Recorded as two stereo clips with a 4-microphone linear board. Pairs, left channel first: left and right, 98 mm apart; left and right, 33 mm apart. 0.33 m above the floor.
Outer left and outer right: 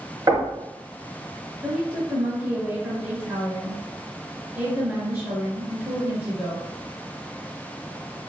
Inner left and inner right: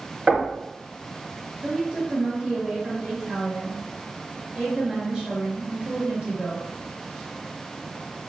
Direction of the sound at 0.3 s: 40° right (ahead or behind).